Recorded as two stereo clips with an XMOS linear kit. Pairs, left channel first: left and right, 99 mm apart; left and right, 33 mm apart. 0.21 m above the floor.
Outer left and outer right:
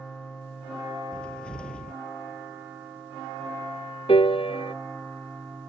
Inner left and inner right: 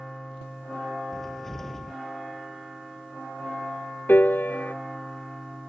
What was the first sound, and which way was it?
A cupboard door, 10° left (ahead or behind).